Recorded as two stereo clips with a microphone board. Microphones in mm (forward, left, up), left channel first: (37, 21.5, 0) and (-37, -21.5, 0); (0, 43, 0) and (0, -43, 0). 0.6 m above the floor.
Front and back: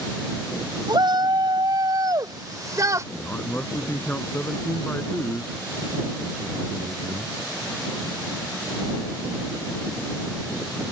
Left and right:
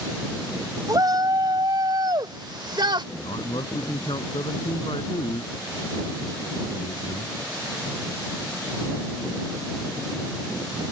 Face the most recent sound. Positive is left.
turn(degrees=100)